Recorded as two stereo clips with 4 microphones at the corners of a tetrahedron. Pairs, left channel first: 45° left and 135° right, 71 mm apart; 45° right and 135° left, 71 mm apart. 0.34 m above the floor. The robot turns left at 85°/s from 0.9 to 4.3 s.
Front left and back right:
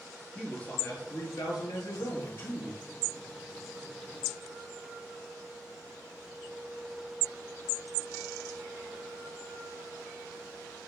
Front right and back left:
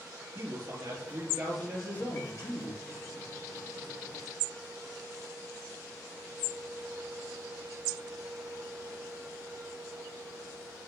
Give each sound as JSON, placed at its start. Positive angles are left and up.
{"t": 0.3, "sound": "a man speaking", "azimuth_deg": 110, "distance_m": 6.5}